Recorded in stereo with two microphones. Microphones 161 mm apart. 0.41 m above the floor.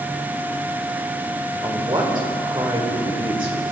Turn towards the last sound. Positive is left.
turn(degrees=-30)  # may be behind; listen again after turning